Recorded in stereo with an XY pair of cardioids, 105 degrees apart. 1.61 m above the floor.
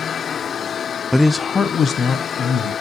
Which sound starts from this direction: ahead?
A man speaking, at 1.1 s.